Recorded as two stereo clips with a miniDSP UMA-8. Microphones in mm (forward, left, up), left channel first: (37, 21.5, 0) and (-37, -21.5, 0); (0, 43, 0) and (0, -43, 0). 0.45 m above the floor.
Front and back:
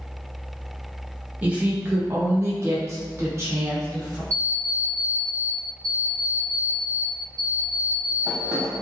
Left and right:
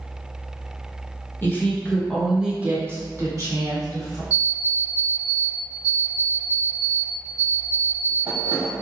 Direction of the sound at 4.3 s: 100° right.